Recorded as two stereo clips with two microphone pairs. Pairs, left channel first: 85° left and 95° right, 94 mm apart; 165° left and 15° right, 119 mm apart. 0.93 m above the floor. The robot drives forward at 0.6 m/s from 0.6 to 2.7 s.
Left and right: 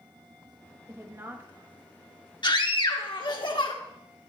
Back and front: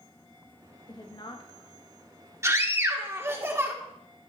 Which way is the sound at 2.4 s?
50° left.